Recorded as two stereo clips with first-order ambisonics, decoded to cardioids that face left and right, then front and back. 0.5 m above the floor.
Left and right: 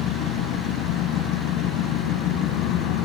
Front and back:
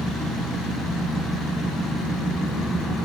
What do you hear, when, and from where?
0.0 s an engine running: 85° left, 2.5 m